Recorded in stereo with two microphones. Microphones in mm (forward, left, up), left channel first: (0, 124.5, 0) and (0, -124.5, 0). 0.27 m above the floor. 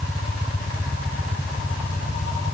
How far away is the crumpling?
I don't hear crumpling.